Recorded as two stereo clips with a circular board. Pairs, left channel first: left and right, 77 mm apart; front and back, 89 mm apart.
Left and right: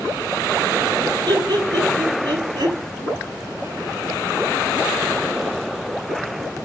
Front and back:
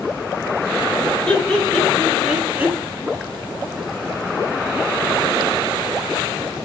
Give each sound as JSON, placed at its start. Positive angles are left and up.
{"t": 1.3, "sound": "laughter", "azimuth_deg": -75, "distance_m": 3.0}